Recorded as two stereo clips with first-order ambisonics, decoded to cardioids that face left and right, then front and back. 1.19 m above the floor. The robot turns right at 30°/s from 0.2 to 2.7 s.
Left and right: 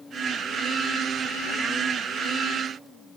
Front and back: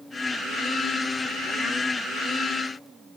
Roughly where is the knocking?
I don't hear knocking.